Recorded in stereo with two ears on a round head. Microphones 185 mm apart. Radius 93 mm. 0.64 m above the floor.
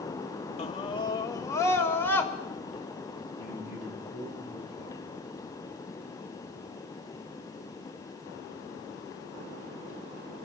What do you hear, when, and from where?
0.6 s a scream: 30° left (ahead or behind), 0.9 m; by 2.3 s 10° left (ahead or behind), 2.5 m
3.4 s a man speaking: 35° right (ahead or behind), 8.5 m